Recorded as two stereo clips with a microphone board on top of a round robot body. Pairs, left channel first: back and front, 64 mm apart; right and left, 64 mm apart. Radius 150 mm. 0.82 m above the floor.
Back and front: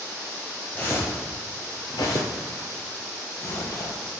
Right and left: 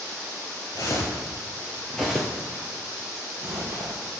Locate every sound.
0.8 s footsteps: 115° right, 1.1 m; by 4.0 s 140° left, 1.8 m